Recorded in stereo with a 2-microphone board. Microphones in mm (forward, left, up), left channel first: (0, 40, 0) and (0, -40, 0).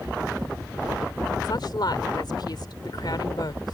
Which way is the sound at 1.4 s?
65° left (ahead or behind).